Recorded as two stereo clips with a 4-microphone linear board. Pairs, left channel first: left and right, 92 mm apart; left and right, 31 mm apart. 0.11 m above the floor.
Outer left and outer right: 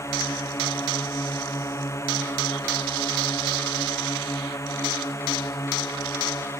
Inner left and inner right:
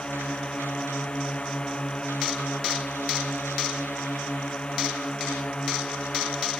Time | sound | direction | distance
0.0 | a drone | 35° left (ahead or behind) | ?